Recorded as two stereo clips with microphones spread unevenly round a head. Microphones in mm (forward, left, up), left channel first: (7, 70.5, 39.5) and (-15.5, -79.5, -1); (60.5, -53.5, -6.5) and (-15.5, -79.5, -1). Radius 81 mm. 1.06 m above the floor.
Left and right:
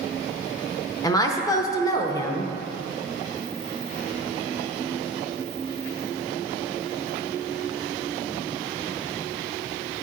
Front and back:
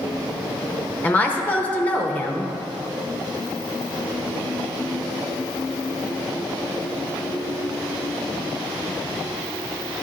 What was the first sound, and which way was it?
A woman speaking, 10° left.